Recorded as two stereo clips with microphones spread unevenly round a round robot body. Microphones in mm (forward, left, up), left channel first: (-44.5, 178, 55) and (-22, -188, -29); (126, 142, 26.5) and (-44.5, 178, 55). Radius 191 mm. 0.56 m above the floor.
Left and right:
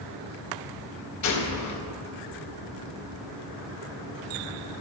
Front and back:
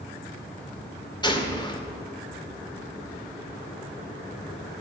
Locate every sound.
1.2 s a gunshot: 45° left, 2 m